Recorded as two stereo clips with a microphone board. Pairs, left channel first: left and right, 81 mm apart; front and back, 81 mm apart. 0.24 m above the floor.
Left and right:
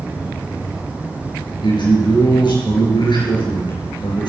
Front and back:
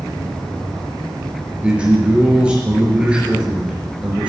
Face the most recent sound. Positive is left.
turn(degrees=105)